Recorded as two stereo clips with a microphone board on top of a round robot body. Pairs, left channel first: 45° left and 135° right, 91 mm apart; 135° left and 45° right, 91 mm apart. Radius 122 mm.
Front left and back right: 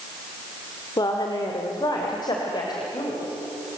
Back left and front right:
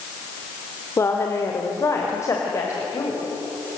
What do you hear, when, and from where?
1.0 s a woman speaking: 80° left, 1.9 m